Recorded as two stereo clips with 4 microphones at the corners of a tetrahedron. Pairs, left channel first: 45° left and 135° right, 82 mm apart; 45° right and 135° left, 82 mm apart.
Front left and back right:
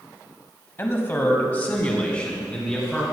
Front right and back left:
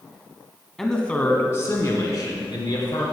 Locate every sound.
0.8 s a man speaking: 40° left, 1.7 m; by 3.0 s 35° right, 3.5 m